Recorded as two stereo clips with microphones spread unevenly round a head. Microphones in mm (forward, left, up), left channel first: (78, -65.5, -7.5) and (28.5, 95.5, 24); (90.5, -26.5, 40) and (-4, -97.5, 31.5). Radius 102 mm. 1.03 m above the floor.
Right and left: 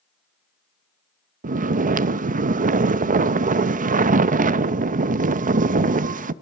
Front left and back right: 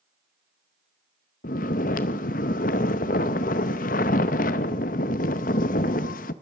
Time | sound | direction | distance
1.4 | snoring | 65° left | 0.6 m